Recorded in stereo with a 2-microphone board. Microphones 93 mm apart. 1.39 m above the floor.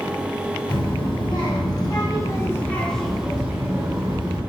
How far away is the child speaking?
About 1.5 m.